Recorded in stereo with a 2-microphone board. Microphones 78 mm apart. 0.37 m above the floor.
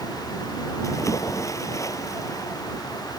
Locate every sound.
0.8 s a splash: 40° left (ahead or behind)